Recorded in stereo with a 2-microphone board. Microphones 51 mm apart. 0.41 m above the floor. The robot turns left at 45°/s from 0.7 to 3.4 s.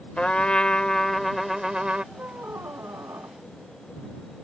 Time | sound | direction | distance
0.2 | a trumpet | 30° left | ?
2.1 | a squeak | 35° right | ?